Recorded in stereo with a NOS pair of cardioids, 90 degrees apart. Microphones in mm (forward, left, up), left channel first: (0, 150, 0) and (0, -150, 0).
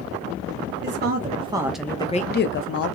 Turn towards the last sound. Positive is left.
turn(degrees=60)